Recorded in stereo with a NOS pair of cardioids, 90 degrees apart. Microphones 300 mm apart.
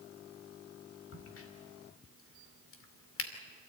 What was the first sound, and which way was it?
A crack, 45° left.